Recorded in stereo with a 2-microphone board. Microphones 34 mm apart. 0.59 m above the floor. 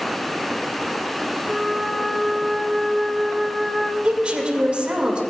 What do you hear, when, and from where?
1.5 s a flute: 15° left (ahead or behind), 0.6 m
4.0 s a woman speaking: 35° right (ahead or behind), 1.9 m